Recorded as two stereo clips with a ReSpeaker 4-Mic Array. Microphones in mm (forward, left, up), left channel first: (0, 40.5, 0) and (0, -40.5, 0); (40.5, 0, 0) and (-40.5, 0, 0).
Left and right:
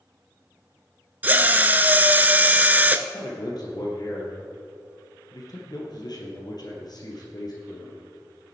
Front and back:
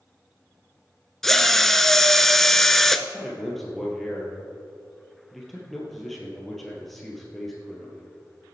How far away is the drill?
About 0.6 m.